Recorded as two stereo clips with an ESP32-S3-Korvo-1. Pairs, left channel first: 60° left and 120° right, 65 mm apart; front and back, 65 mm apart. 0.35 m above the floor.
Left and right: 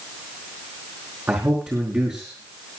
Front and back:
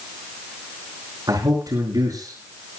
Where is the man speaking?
175° left, 5.5 m.